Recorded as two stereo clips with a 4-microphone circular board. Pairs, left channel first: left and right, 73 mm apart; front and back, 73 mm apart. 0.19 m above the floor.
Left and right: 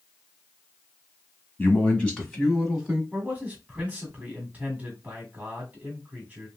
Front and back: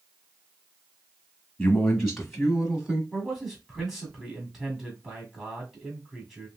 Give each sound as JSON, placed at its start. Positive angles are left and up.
{"t": 1.6, "sound": "a man speaking", "azimuth_deg": 65, "distance_m": 1.2}
{"t": 3.1, "sound": "a man speaking", "azimuth_deg": -105, "distance_m": 1.5}